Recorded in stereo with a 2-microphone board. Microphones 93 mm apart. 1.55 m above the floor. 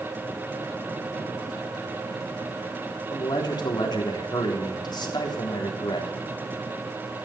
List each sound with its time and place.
3.1 s a man speaking: 55° left (ahead or behind), 3.5 m